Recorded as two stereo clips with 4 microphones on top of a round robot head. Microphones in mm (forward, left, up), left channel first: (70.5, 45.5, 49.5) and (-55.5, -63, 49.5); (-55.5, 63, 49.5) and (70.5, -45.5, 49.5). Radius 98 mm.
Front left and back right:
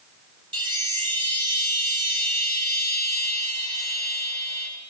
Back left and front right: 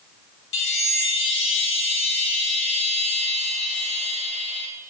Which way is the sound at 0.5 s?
155° left.